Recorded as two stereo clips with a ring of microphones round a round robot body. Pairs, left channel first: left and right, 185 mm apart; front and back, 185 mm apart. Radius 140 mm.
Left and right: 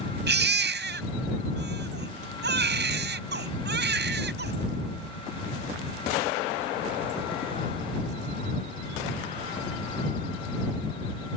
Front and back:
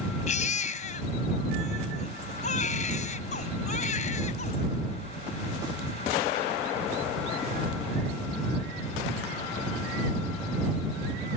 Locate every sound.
0.3 s a baby crying: 65° right